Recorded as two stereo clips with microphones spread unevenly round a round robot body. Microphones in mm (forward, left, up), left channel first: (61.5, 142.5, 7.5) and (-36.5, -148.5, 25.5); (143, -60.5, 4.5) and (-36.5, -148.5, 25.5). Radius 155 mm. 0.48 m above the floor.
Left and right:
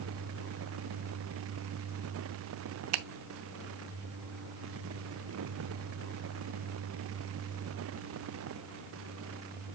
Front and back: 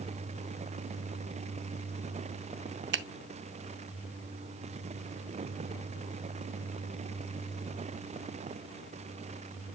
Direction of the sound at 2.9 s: 140° right.